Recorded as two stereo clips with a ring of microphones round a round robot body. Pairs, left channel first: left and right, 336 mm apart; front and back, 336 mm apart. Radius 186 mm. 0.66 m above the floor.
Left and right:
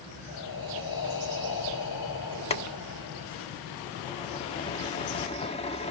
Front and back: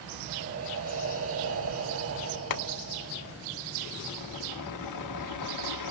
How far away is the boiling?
About 1.4 m.